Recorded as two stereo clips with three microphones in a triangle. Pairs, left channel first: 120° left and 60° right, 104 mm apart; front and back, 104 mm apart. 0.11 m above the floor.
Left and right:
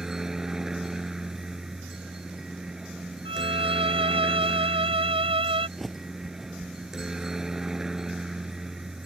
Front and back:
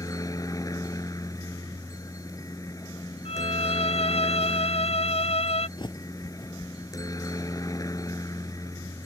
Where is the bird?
30° left.